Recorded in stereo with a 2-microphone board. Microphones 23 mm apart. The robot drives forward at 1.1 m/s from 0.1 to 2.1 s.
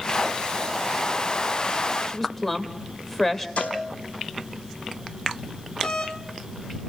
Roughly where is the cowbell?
Left.